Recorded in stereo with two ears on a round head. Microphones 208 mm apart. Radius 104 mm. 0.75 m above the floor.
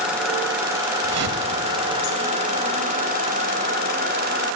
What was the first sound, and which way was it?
A whoosh, 80° right.